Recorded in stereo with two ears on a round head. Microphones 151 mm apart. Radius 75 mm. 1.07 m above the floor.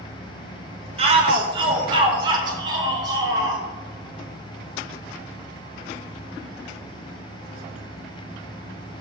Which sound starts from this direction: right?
A shout, at 1.0 s.